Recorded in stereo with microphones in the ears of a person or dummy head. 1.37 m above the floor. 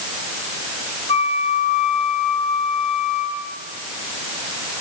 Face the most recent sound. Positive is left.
turn(degrees=30)  # may be behind; listen again after turning